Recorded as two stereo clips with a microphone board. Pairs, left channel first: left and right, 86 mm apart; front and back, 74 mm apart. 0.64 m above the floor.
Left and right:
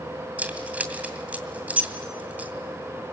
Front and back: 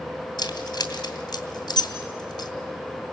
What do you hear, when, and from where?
0.4 s keys jangling: 15° right, 2.5 m